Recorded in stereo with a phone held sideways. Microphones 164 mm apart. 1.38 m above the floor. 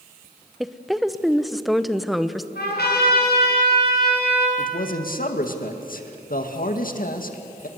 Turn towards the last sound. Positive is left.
turn(degrees=60)  # may be behind; listen again after turning